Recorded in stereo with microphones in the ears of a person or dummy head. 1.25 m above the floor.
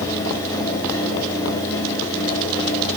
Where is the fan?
15° left (ahead or behind), 4 m.